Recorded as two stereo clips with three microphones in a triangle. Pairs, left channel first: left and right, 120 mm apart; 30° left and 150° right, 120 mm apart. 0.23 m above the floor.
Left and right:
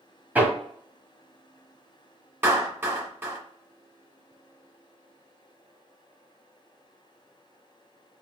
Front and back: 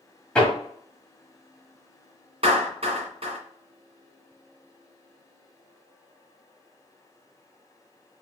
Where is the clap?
160° right, 1.7 m.